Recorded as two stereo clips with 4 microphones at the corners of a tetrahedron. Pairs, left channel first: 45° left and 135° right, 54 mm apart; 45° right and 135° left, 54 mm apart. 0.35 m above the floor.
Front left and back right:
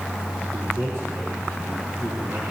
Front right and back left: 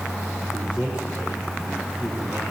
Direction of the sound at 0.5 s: 160° right.